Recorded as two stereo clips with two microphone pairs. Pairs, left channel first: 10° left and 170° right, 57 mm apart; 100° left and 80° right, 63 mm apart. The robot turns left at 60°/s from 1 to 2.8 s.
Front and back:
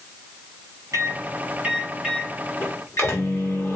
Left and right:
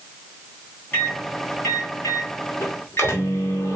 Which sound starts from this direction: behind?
A microwave, at 0.9 s.